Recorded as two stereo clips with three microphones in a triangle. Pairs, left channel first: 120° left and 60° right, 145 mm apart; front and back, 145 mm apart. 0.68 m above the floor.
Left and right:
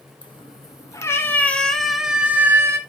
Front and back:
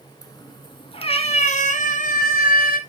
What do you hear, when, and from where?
0.2 s a cat meowing: 65° left, 1.6 m; by 2.8 s 10° left, 1.6 m